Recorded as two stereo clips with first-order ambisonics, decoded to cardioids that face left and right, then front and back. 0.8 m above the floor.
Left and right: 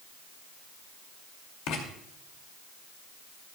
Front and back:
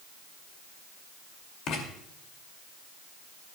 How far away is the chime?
I don't hear a chime.